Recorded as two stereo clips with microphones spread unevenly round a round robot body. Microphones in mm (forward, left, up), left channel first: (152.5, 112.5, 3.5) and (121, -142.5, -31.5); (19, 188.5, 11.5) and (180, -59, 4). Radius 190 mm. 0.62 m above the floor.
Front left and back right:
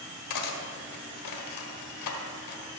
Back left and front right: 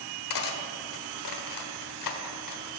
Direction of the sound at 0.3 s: 105° left.